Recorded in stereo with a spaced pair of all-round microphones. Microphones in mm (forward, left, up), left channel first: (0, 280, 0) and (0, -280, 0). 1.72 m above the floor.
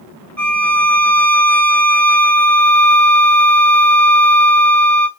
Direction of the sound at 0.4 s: 30° right (ahead or behind).